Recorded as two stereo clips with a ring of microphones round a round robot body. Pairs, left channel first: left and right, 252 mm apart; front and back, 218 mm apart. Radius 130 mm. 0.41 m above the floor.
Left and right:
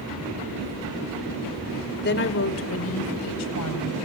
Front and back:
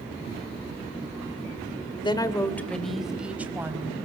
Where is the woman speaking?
60° left, 1.8 m; by 4.0 s 105° left, 4 m.